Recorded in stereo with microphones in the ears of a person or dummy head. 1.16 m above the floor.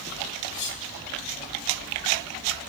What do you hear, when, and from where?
0.5 s cutlery clinking: 60° left (ahead or behind), 2 m